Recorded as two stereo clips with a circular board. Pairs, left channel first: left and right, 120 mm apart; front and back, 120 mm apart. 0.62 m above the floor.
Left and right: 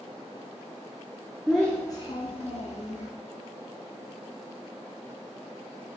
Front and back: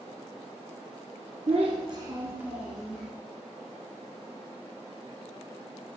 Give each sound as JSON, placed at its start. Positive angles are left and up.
{"t": 1.5, "sound": "a child speaking", "azimuth_deg": -175, "distance_m": 0.6}